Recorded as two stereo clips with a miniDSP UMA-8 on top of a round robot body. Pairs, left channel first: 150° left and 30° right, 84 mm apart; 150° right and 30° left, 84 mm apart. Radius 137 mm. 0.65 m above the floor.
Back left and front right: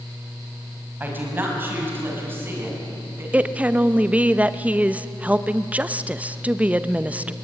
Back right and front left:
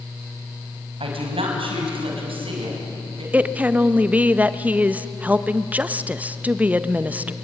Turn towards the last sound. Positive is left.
turn(degrees=5)